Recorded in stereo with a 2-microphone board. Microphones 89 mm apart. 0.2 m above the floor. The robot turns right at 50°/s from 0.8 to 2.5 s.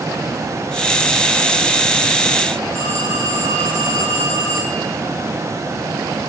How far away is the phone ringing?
About 6 m.